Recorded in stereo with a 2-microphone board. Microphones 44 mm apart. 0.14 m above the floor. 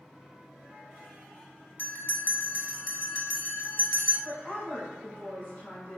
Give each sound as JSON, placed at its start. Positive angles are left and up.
{"t": 1.8, "sound": "a bell", "side_deg": 50, "distance_m": 0.6}
{"t": 4.2, "sound": "a woman speaking", "side_deg": 25, "distance_m": 1.4}